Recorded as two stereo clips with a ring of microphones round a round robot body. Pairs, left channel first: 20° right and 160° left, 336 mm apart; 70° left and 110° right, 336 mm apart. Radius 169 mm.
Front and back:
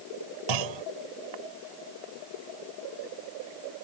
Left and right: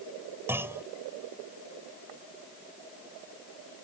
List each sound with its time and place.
0.5 s a clunk: 165° left